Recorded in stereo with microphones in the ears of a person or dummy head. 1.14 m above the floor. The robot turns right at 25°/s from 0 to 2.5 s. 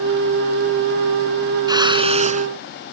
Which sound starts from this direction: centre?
A whoosh, at 1.7 s.